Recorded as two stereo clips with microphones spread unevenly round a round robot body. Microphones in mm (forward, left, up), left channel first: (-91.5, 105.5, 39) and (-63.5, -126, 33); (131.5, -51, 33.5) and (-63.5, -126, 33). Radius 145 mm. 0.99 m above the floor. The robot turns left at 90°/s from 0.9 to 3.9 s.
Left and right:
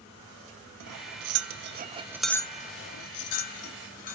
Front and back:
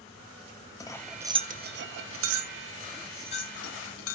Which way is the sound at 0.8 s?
55° right.